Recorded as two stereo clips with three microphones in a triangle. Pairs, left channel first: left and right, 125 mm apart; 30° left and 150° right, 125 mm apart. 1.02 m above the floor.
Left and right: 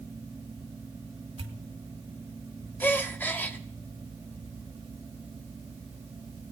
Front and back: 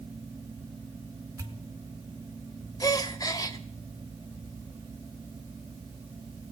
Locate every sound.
1.4 s a pop: 90° right, 1.2 m
2.8 s a gasp: 35° left, 0.7 m